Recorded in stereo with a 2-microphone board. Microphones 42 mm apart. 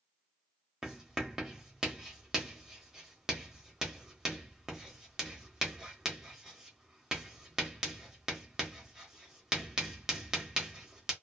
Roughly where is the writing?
Centre.